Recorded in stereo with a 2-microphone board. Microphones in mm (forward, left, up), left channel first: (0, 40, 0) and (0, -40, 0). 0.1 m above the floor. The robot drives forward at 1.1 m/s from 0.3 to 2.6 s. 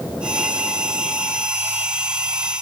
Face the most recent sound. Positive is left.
No sound to turn to.